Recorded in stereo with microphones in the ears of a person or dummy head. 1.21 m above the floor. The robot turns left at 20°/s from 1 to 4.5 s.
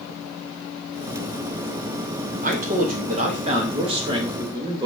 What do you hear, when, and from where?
2.4 s a man speaking: 110° right, 0.7 m; by 4.9 s 155° right, 0.7 m